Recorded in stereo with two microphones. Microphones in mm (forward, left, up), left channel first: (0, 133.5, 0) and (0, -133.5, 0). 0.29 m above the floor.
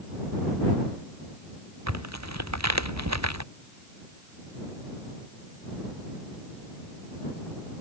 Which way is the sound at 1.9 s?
80° right.